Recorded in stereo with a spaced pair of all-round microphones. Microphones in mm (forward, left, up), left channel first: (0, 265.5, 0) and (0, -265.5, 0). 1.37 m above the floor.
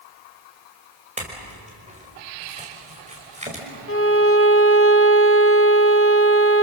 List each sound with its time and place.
1.2 s a clink: 15° right (ahead or behind), 5 m
3.9 s a violin: 25° left (ahead or behind), 0.8 m